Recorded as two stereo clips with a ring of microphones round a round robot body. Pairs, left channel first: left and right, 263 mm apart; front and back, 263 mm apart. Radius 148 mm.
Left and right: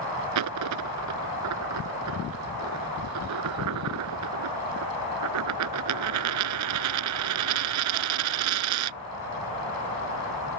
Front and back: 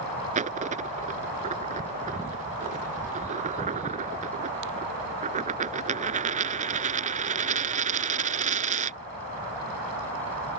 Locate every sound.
0.3 s a dropped coin: 115° right